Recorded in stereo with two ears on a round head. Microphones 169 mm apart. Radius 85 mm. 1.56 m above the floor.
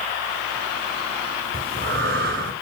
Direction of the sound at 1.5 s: 55° right (ahead or behind).